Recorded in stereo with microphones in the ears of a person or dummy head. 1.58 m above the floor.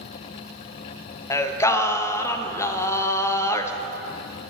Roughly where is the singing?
Centre.